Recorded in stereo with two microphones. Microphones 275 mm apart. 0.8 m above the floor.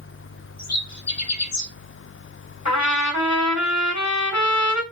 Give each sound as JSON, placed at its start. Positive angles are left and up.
{"t": 0.6, "sound": "a bird", "side_deg": 65, "distance_m": 1.2}
{"t": 2.6, "sound": "a trumpet", "side_deg": 70, "distance_m": 1.8}